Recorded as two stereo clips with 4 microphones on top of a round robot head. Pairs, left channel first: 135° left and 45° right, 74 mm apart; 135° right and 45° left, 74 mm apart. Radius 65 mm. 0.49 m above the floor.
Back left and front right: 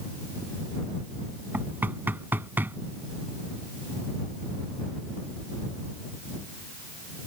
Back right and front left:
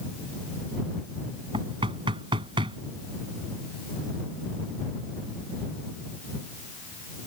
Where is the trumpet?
I don't hear a trumpet.